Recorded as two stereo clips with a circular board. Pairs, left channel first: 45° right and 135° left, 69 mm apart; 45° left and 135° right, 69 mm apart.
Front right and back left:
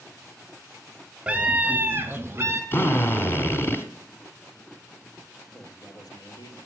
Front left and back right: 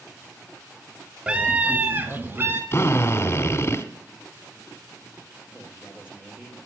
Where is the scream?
Straight behind, 1.0 m; by 2.6 s 175° left, 1.6 m.